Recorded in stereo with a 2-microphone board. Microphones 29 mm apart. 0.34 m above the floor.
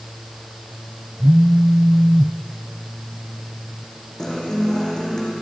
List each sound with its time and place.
1.2 s a phone buzzing: 35° right (ahead or behind), 0.8 m
4.2 s a guitar: 20° left (ahead or behind), 5 m